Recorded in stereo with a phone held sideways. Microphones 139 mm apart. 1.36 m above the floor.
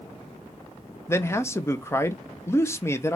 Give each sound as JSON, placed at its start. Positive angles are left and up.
{"t": 1.1, "sound": "a man speaking", "side_deg": 20, "distance_m": 0.6}